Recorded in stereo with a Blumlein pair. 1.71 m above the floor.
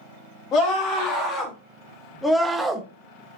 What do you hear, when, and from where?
0.5 s a scream: 35° left, 3.5 m; by 2.9 s 20° right, 1.2 m